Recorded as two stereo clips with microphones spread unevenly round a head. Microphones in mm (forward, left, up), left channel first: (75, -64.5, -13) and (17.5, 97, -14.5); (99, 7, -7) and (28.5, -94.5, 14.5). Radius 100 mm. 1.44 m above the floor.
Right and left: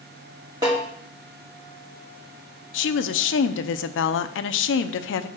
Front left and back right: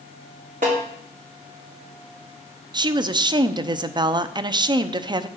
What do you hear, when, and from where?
0.6 s a snare drum: straight behind, 2.5 m
2.7 s a woman speaking: 65° right, 0.6 m